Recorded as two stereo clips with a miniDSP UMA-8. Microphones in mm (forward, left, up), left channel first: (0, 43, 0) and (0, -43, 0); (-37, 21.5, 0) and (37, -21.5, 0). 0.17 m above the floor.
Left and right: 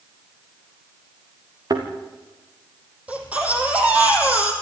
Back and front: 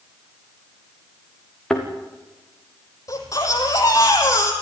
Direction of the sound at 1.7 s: 130° right.